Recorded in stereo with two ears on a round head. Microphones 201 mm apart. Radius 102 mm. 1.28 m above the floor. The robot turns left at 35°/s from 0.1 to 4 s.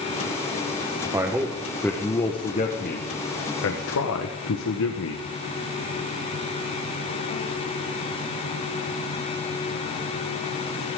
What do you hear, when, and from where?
1.1 s a man speaking: 165° right, 1.2 m; by 5.2 s 95° left, 1.2 m